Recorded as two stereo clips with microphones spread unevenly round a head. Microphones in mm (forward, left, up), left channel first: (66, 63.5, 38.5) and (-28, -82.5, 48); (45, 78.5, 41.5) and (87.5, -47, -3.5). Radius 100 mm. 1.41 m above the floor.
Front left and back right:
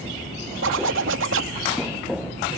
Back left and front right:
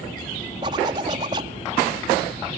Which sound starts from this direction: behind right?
A zipper, at 0.6 s.